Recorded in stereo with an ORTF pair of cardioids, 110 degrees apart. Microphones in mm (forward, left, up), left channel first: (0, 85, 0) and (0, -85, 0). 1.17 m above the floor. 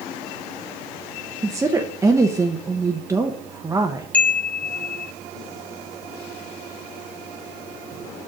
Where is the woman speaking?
15° right, 0.7 m.